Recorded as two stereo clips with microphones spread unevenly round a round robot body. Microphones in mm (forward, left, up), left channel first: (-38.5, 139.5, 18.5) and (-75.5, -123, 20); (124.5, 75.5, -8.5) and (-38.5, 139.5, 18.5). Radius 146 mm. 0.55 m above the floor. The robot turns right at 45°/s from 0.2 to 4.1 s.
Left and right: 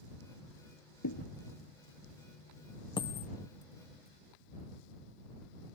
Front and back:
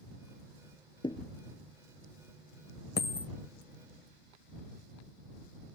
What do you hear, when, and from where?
1.0 s a thud: 45° left; by 1.3 s 55° left
3.0 s a dropped coin: 5° left; by 3.3 s 20° left